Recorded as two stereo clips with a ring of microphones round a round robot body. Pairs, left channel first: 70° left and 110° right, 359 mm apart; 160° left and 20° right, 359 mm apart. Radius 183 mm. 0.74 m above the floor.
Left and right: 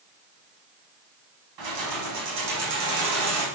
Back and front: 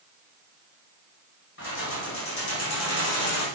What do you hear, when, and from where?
1.6 s keys jangling: 145° right, 4 m; by 3.5 s 155° right, 3.5 m